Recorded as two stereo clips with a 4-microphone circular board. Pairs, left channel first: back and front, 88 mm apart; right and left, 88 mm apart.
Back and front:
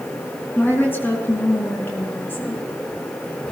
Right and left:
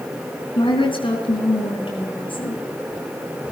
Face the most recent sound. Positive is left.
turn(degrees=-115)